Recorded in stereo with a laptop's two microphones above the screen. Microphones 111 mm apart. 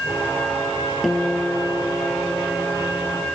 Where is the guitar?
Centre (ahead or behind).